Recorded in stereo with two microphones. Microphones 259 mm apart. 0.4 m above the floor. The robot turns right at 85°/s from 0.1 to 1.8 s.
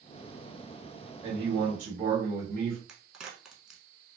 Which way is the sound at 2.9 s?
5° right (ahead or behind).